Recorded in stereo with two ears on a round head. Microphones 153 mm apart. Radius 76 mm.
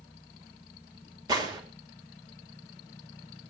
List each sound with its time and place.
1.3 s a gunshot: 25° right (ahead or behind), 3 m